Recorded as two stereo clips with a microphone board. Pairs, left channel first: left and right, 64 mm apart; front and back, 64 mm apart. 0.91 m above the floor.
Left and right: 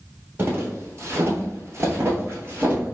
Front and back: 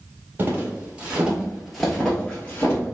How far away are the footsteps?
About 1.3 m.